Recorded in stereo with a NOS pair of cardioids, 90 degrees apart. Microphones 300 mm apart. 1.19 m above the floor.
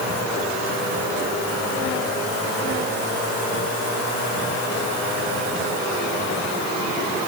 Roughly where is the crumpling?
I don't hear crumpling.